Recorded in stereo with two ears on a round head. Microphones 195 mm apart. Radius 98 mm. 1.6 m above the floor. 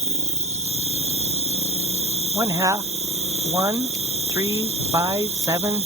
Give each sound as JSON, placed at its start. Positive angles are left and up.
{"t": 0.0, "sound": "an insect", "side_deg": -30}
{"t": 2.4, "sound": "a man speaking", "side_deg": -15}